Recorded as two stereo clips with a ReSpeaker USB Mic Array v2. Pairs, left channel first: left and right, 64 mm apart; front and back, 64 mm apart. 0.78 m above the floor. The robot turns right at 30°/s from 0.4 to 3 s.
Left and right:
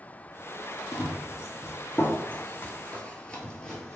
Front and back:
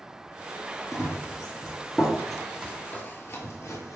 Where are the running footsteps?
90° left, 1.3 m; by 4.0 s 10° left, 1.2 m.